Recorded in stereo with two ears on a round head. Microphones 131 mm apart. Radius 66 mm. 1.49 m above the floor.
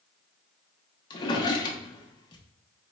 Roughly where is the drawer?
Left.